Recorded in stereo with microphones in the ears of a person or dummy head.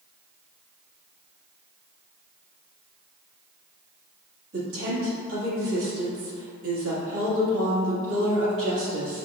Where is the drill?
No drill in this recording.